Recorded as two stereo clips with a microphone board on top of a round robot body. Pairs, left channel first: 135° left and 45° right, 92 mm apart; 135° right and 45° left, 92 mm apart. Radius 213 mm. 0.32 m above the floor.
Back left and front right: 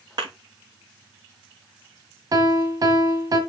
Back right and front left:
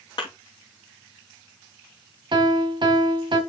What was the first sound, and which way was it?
A thud, 90° right.